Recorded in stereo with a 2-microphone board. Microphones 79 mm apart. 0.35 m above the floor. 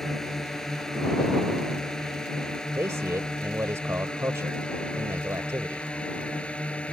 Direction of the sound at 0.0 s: 5° left (ahead or behind).